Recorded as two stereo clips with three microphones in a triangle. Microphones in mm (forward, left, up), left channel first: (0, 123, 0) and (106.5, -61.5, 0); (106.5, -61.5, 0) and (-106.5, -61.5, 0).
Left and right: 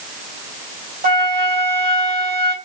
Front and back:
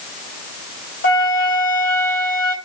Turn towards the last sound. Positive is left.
turn(degrees=-15)